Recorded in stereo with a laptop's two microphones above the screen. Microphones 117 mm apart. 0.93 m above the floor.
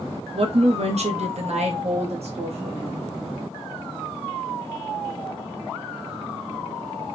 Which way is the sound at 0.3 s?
55° right (ahead or behind).